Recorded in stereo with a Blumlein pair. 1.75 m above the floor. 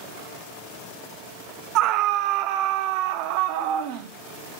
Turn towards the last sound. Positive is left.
turn(degrees=-45)